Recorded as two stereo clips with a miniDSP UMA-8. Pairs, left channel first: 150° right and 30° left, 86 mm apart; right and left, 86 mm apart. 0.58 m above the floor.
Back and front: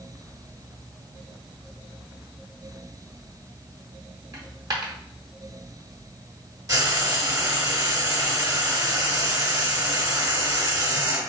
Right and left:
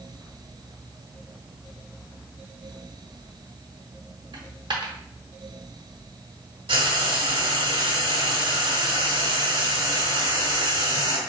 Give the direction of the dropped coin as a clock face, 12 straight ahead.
10 o'clock.